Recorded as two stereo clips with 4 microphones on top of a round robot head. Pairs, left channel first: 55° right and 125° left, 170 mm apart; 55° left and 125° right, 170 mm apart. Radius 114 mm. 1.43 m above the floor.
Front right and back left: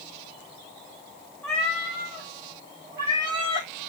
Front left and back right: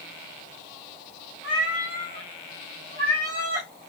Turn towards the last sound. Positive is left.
turn(degrees=-175)